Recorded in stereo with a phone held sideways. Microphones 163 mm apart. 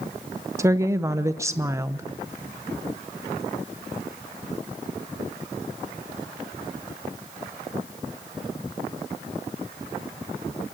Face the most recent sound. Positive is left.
turn(degrees=-15)  # may be behind; listen again after turning